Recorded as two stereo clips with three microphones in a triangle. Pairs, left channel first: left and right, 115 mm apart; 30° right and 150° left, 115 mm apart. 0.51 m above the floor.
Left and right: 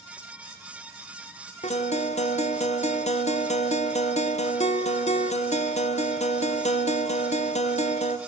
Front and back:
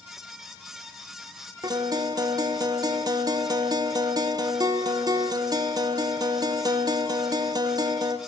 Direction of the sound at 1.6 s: 95° left.